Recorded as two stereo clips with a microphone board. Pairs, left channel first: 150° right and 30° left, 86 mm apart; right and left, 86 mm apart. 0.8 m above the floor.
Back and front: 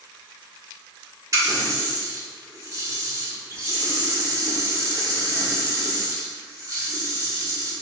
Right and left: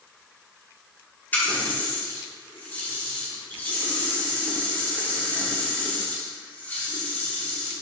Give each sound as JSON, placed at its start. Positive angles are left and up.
{"t": 1.3, "sound": "a running tap", "azimuth_deg": -20, "distance_m": 1.7}